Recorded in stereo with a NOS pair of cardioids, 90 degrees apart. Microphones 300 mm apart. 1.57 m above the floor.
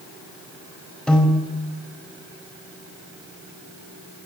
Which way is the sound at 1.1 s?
5° left.